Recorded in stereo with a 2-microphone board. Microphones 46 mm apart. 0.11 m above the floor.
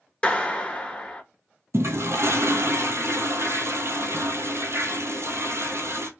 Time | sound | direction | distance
0.2 | a clap | 20° left (ahead or behind) | 1.0 m
1.7 | a toilet flushing | 70° right (ahead or behind) | 0.9 m